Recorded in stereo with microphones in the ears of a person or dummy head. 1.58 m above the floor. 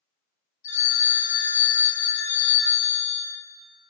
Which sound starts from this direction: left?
A phone ringing, at 0.6 s.